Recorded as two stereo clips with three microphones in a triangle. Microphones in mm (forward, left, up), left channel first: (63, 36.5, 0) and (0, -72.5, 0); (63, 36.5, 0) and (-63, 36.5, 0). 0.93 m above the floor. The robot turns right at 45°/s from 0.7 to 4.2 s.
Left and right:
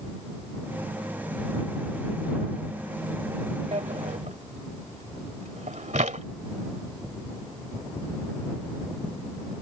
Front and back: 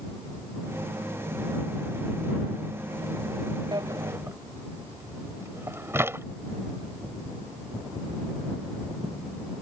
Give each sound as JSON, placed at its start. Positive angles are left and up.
{"t": 3.7, "sound": "a drawer", "azimuth_deg": -135}